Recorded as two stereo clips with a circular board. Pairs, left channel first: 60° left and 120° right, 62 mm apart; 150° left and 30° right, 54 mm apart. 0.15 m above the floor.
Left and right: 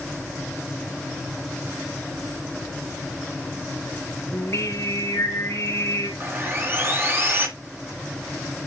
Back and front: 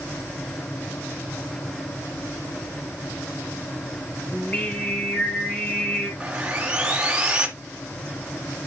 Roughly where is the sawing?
Right.